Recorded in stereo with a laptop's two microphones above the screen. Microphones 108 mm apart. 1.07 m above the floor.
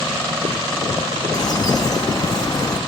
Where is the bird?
40° left (ahead or behind), 0.9 m.